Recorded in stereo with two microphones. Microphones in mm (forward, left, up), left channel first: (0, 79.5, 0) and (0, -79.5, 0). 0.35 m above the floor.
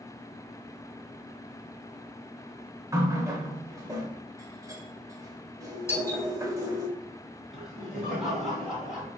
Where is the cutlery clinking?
I don't hear cutlery clinking.